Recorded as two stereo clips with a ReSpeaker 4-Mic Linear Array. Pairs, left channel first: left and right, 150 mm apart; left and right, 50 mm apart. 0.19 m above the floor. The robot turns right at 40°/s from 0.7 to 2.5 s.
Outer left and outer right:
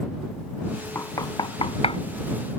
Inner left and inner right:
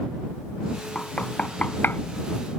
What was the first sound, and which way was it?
Knocking, 20° left (ahead or behind).